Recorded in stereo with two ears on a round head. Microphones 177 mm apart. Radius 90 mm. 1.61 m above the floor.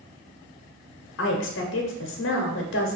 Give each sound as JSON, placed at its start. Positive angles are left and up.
{"t": 1.2, "sound": "a woman speaking", "side_deg": 70, "distance_m": 0.8}